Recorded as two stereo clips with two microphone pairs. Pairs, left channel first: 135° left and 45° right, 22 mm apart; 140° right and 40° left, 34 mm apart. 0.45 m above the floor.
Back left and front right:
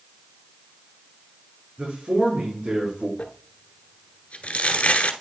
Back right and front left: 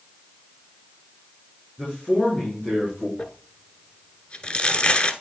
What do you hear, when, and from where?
1.8 s a man speaking: 80° right, 5 m
3.2 s crumpling: 165° left, 1.0 m